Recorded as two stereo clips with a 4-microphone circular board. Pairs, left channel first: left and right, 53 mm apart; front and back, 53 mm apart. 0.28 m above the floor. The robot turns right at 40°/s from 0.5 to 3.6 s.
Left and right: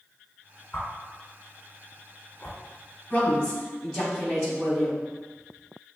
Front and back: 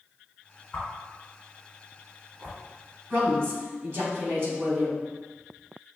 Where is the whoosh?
60° left, 1.6 m; by 2.6 s 135° left, 1.6 m.